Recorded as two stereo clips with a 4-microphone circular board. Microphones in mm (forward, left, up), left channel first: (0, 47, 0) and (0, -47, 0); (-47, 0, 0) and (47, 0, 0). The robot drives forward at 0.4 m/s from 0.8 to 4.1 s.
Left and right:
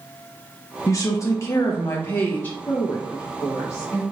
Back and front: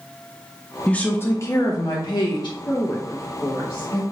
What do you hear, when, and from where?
0.9 s a woman speaking: 110° left, 0.5 m; by 2.6 s 160° left, 0.9 m
2.7 s a woman speaking: 125° left, 0.7 m; by 4.0 s 150° left, 1.1 m